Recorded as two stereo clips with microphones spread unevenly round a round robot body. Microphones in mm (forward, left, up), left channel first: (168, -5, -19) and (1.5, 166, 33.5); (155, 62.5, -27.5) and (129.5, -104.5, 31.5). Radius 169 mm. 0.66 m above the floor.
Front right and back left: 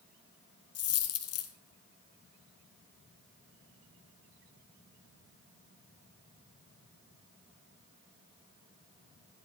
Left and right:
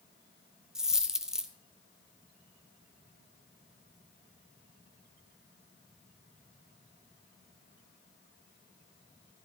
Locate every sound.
0.8 s a dropped coin: 25° right, 1.3 m